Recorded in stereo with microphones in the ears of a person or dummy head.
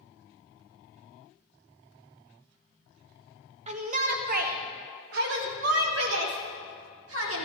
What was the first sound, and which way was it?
A shout, 40° right (ahead or behind).